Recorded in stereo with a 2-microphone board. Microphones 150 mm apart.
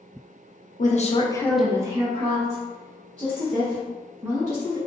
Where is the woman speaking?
60° left (ahead or behind), 0.8 m; by 4.8 s 60° right (ahead or behind), 3 m.